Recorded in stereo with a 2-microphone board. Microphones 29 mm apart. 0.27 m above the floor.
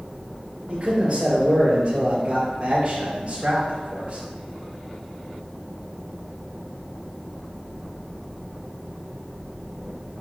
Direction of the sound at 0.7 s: 35° right (ahead or behind).